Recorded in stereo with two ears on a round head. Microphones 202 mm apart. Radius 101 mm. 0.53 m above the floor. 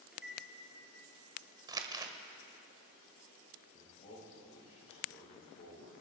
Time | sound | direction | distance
0.1 | a microwave | 5° right (ahead or behind) | 7.5 m
1.7 | crumpling | 20° right (ahead or behind) | 1.5 m
3.7 | a man speaking | 30° left (ahead or behind) | 8 m